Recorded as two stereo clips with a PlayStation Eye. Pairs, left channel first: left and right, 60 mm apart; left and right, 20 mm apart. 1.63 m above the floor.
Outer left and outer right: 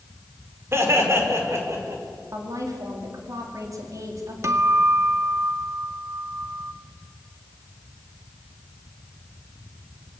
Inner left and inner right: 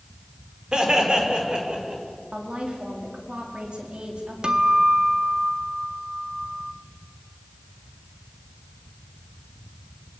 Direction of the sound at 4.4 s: 50° right (ahead or behind).